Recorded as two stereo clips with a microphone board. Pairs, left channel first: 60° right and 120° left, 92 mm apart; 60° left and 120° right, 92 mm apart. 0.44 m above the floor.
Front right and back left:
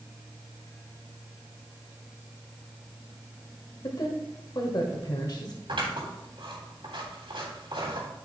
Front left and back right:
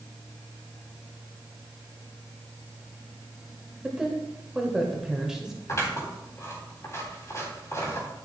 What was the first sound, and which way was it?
A woman speaking, 40° right.